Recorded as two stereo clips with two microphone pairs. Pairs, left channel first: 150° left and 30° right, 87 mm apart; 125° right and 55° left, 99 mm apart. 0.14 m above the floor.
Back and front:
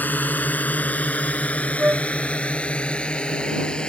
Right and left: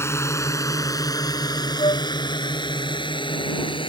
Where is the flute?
100° right.